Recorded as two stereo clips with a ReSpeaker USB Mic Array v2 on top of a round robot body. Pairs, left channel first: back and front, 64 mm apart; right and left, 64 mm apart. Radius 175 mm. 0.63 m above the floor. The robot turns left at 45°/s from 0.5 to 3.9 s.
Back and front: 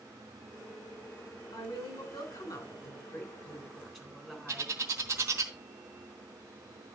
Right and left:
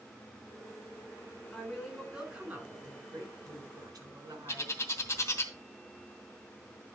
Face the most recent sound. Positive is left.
turn(degrees=-45)